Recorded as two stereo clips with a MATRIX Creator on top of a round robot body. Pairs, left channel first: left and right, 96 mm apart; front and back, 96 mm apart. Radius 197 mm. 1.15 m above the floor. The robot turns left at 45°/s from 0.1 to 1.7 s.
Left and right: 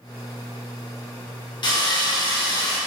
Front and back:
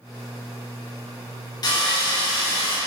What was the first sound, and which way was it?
Sawing, 50° left.